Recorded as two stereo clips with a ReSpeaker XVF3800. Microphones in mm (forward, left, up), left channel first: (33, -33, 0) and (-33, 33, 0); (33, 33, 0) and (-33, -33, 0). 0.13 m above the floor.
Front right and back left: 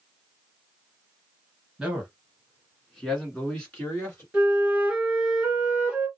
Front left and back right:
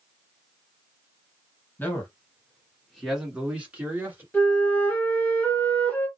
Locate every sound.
1.8 s a man speaking: 65° left, 1.6 m; by 4.2 s 90° right, 1.7 m
4.3 s a flute: 80° left, 1.4 m